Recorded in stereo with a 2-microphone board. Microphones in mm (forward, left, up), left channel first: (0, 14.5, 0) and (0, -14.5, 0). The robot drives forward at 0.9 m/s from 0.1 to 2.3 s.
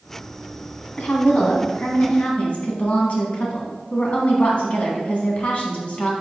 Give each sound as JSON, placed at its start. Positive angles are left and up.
{"t": 1.0, "sound": "a woman speaking", "side_deg": 55, "distance_m": 1.8}